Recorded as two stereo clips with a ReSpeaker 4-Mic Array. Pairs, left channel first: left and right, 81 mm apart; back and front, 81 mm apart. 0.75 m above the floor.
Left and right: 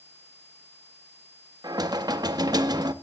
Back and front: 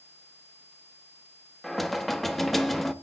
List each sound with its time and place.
1.6 s knocking: 95° right, 0.8 m